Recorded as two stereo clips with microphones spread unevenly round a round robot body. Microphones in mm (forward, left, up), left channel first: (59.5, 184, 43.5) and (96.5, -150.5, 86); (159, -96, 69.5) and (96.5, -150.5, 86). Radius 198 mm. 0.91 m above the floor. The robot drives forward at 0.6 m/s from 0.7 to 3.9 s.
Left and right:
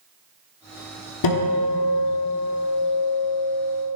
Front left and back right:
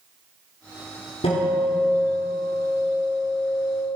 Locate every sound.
1.2 s a guitar: 70° left, 1.1 m; by 4.0 s 140° left, 1.6 m